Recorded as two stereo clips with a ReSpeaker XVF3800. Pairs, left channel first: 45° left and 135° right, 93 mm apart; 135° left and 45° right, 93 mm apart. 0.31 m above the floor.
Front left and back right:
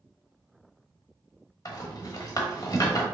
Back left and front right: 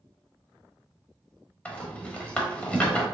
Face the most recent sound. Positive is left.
turn(degrees=65)